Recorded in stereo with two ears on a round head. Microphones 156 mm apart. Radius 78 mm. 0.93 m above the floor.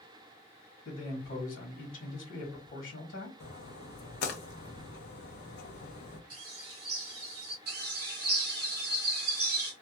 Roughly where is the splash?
Left.